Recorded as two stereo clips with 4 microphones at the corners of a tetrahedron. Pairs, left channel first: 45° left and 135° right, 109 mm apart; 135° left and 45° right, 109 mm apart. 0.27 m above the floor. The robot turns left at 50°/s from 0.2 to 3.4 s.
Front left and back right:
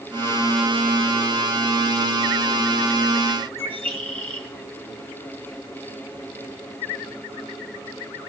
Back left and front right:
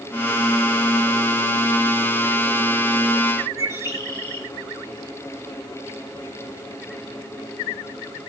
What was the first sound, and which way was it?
A bird, 105° right.